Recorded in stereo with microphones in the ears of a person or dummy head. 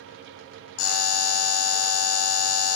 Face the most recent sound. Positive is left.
turn(degrees=75)  # may be behind; listen again after turning